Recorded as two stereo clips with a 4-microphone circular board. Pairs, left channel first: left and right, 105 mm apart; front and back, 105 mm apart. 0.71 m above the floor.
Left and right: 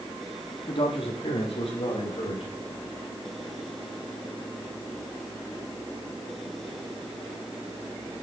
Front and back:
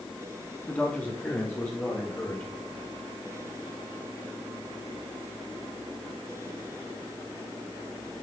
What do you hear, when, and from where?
0.7 s a man speaking: 75° left, 1.2 m; by 2.5 s 70° left, 2.5 m